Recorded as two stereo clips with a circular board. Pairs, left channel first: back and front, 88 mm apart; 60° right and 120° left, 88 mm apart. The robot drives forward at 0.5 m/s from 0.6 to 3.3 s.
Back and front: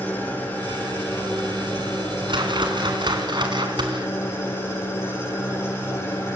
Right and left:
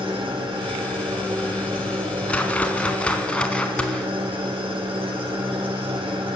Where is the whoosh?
15° left, 3.5 m.